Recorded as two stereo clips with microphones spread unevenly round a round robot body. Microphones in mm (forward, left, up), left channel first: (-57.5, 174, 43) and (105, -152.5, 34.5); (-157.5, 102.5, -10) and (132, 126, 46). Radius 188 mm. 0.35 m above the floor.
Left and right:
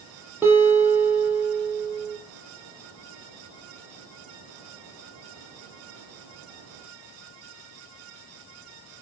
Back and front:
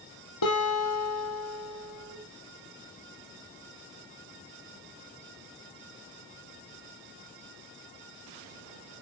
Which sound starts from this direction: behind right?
A guitar, at 0.4 s.